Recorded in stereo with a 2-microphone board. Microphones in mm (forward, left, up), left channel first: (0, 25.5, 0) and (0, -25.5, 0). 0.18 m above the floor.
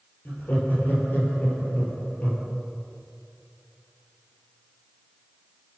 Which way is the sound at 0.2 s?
40° left (ahead or behind).